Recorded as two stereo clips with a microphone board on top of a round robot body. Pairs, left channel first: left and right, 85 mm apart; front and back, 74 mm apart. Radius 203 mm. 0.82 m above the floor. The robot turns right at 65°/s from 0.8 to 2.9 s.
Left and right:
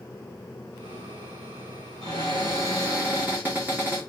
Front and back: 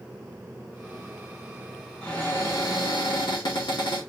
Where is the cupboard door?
80° right, 0.8 m; by 4.0 s 20° right, 0.8 m.